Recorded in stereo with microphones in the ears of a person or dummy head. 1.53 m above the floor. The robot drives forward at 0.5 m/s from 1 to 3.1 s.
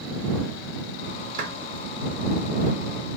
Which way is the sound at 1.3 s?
45° right (ahead or behind).